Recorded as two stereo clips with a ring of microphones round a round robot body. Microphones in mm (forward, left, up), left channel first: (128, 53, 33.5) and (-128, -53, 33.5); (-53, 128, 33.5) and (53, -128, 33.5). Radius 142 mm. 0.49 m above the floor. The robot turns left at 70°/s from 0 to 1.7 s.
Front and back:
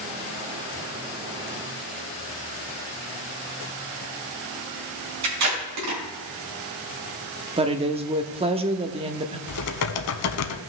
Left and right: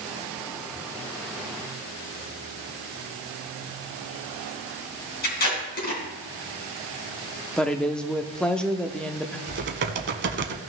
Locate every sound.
5.2 s tape being pulled: 170° left, 3.5 m
7.6 s a woman speaking: 165° right, 0.7 m
9.5 s typing on a keyboard: 15° right, 0.8 m